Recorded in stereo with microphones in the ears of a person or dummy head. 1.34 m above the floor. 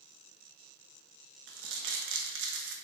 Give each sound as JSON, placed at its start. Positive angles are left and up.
{"t": 1.5, "sound": "crumpling", "side_deg": -65, "distance_m": 1.5}